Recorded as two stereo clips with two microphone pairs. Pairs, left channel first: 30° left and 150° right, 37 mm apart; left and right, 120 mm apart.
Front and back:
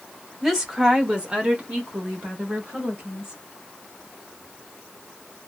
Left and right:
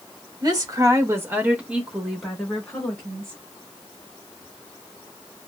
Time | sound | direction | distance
0.4 | a woman speaking | 70° right | 1.0 m